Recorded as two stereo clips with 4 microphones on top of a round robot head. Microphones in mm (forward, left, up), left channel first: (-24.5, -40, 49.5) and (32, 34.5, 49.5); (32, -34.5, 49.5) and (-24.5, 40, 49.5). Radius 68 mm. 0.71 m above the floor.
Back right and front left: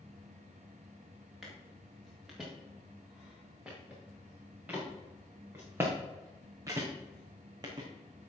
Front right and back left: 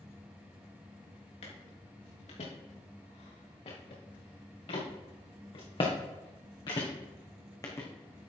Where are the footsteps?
35° right, 5.5 m; by 7.9 s 10° left, 3 m.